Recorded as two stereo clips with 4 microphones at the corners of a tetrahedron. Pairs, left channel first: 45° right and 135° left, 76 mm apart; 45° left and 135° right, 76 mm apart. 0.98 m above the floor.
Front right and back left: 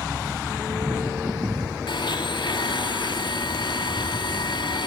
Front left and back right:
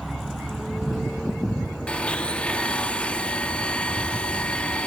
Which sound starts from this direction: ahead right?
A blender, at 1.9 s.